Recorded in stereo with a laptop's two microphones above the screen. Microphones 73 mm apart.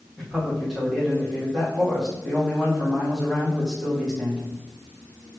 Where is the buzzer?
I don't hear a buzzer.